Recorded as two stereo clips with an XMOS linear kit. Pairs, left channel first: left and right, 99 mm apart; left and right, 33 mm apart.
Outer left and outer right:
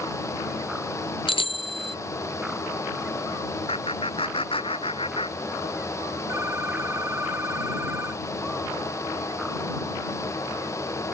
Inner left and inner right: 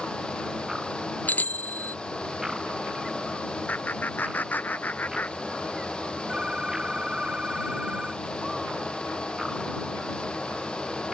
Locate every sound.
1.3 s a bicycle bell: 65° left (ahead or behind)
3.7 s laughter: 70° left (ahead or behind)
6.3 s a phone ringing: 25° right (ahead or behind)